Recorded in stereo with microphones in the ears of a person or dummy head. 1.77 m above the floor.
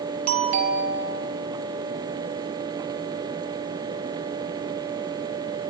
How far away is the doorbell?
About 3 m.